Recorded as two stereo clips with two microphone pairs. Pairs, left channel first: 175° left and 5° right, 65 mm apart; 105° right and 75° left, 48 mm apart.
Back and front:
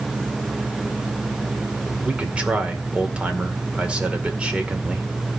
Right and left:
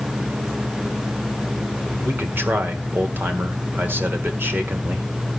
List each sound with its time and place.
2.0 s a man speaking: 60° left, 1.9 m